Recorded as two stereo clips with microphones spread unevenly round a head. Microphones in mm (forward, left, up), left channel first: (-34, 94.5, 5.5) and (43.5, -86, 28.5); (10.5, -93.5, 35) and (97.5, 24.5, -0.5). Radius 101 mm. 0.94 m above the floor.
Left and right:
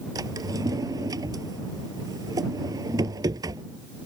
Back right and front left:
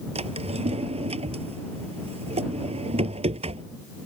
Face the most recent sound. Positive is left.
turn(degrees=5)